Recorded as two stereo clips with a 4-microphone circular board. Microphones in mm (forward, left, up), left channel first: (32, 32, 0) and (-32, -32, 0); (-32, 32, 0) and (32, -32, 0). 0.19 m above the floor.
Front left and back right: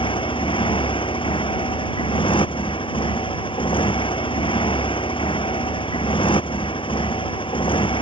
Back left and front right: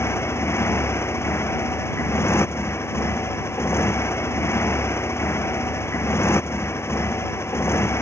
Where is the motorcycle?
70° left.